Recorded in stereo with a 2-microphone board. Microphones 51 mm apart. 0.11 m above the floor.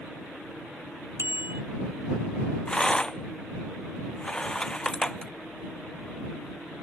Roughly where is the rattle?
Centre.